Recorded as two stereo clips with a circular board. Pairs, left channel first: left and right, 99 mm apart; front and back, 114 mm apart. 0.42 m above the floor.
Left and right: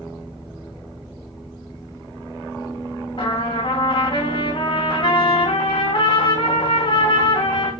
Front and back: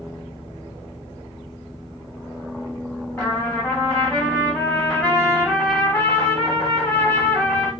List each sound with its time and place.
3.2 s a trumpet: 80° left, 3.5 m